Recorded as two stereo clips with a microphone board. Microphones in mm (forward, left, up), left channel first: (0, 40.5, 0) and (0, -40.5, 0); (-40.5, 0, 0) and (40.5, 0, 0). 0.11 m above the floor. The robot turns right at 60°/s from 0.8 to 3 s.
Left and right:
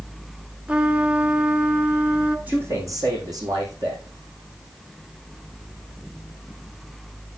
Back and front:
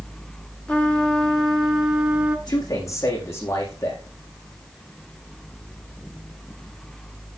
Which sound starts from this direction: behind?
A man speaking, at 2.5 s.